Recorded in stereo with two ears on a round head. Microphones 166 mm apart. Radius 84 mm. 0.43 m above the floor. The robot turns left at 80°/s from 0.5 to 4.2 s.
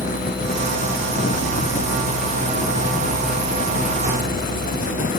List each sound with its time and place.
Only background noise.